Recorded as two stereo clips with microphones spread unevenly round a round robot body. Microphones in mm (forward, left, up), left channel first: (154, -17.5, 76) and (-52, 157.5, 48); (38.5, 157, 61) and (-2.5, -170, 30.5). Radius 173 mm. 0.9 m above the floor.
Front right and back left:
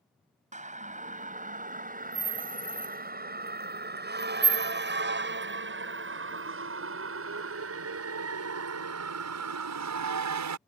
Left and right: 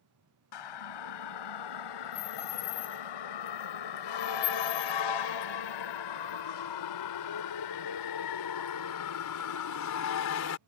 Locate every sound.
0.5 s a siren: 75° left; by 10.6 s 130° left